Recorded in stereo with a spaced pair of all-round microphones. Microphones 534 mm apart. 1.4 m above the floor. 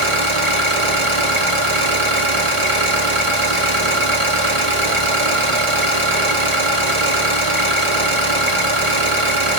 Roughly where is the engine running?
Right.